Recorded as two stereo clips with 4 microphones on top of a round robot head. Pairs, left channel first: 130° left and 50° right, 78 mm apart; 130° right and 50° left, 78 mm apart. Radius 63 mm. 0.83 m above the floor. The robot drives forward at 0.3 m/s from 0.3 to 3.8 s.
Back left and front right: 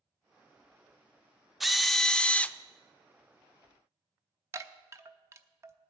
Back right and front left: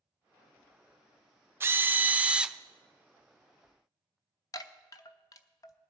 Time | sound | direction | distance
1.6 | a drill | 40° left | 0.6 m
4.5 | a chime | 95° right | 0.8 m